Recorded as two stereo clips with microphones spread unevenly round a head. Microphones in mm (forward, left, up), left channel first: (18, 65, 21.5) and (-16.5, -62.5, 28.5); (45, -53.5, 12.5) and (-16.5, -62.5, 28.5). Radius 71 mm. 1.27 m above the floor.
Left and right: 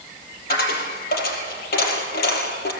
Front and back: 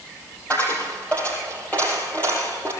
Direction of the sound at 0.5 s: 95° left.